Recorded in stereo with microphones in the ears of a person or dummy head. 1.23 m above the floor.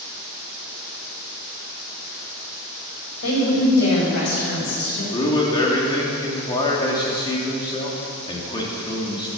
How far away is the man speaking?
About 3 m.